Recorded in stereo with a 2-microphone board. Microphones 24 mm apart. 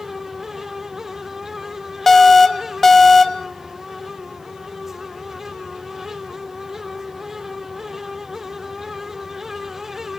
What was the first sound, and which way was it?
An alarm, 20° left (ahead or behind).